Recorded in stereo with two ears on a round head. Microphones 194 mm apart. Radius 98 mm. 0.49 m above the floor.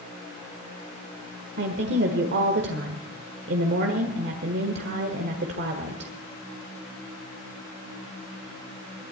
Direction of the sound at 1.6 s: 55° right (ahead or behind).